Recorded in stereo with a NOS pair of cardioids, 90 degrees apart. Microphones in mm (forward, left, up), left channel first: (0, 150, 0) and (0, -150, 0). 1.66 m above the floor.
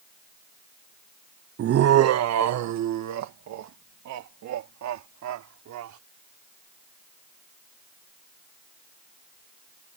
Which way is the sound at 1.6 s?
50° right.